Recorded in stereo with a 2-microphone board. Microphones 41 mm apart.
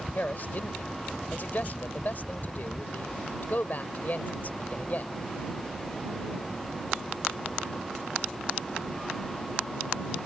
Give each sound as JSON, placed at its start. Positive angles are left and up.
{"t": 0.1, "sound": "a man speaking", "side_deg": 45}